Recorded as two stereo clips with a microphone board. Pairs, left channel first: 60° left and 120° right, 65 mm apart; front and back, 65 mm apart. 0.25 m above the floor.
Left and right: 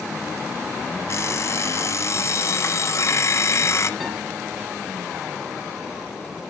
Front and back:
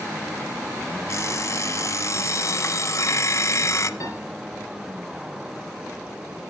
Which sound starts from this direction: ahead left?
An alarm clock, at 1.1 s.